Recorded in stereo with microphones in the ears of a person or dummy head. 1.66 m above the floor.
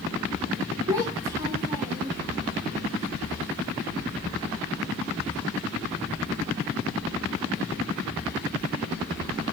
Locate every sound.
0.9 s a child speaking: 20° right (ahead or behind), 1.2 m